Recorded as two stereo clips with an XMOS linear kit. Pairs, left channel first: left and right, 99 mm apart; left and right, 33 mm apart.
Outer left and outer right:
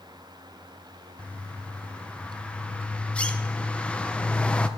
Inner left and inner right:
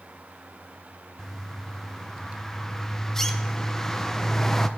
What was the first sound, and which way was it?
A bird, 10° left (ahead or behind).